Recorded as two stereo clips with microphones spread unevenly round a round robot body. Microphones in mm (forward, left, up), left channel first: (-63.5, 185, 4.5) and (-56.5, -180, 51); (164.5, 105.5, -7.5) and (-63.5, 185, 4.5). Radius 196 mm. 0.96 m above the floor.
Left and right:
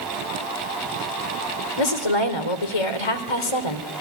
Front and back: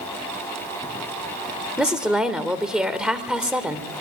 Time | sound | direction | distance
1.8 | a woman speaking | 75° left | 3 m